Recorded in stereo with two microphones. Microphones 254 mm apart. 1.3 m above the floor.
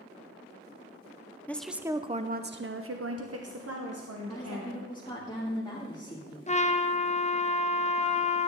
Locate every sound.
1.5 s a woman speaking: 5° left (ahead or behind), 0.6 m; by 4.9 s 70° right (ahead or behind), 1.5 m
4.3 s a woman speaking: 20° left (ahead or behind), 1.9 m
6.5 s a trumpet: 25° left (ahead or behind), 0.5 m